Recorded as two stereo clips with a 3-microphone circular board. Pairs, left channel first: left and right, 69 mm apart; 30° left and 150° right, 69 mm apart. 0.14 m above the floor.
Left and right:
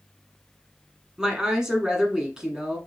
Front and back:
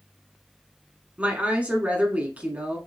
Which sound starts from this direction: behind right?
A woman speaking, at 1.2 s.